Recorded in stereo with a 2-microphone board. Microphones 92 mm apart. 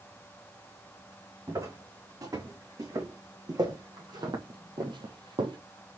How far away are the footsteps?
About 3 m.